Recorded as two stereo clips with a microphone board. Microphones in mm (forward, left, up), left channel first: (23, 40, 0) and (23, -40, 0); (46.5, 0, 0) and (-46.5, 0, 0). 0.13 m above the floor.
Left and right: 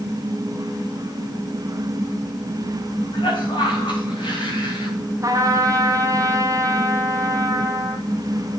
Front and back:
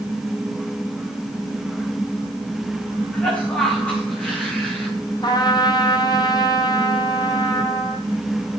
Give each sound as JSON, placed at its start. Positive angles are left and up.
{"t": 3.1, "sound": "a cough", "azimuth_deg": 75, "distance_m": 7.5}
{"t": 5.2, "sound": "a trumpet", "azimuth_deg": -45, "distance_m": 2.0}